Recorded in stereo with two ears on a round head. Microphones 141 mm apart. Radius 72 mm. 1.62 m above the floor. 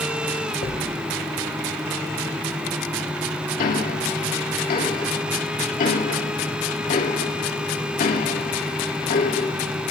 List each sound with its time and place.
0.6 s a thud: 65° left (ahead or behind), 3.5 m
3.6 s ticking: 60° left (ahead or behind), 2.5 m